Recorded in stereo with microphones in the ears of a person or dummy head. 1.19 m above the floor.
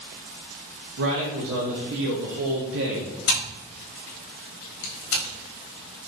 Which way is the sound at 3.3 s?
80° left.